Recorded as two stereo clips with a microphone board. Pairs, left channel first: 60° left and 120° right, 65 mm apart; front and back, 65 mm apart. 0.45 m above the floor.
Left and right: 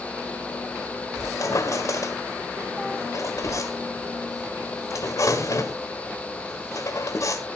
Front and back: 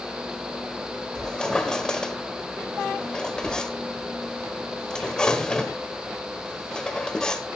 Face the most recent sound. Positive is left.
turn(degrees=75)